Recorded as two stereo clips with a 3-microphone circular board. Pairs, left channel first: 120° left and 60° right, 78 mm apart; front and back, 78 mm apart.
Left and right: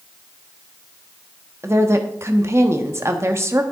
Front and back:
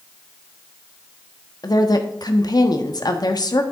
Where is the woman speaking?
10° right, 1.1 m.